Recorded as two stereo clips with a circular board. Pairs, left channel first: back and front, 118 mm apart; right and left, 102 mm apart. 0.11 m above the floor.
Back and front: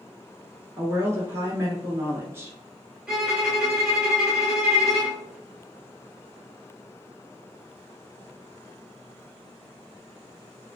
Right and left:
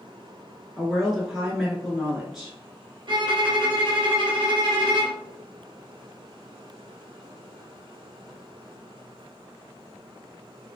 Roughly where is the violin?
Left.